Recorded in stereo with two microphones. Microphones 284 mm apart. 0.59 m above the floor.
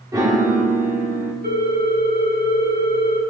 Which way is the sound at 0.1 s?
10° right (ahead or behind).